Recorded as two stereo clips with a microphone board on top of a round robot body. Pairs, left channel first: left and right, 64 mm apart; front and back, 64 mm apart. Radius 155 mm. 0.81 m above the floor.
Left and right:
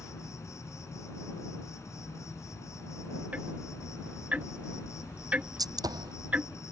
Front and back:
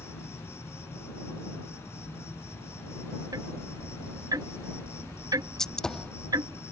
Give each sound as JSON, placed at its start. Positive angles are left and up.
{"t": 0.0, "sound": "an insect", "azimuth_deg": 50}
{"t": 3.3, "sound": "ticking", "azimuth_deg": -155}
{"t": 5.6, "sound": "a gunshot", "azimuth_deg": -80}